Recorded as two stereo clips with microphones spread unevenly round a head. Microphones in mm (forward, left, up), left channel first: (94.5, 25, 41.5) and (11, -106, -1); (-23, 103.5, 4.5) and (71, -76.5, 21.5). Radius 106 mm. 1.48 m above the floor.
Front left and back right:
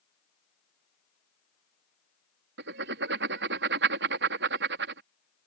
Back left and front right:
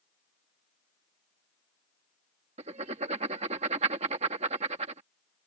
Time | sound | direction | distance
2.6 | writing | 125° right | ?